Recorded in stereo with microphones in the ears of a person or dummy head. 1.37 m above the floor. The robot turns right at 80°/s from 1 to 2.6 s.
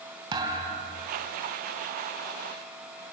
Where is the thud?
30° right (ahead or behind), 3 m; by 1.1 s 20° right (ahead or behind), 3 m.